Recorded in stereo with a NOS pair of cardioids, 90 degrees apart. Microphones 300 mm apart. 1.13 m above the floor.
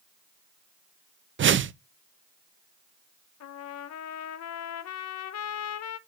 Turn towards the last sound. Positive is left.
turn(degrees=60)